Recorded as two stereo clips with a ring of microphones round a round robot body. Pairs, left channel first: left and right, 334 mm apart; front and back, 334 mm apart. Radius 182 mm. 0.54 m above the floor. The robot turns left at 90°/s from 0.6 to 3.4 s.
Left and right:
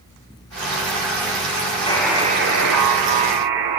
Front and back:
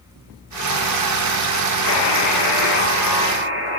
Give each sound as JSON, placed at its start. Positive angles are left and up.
{"t": 1.9, "sound": "a buzzer", "azimuth_deg": 15, "distance_m": 2.5}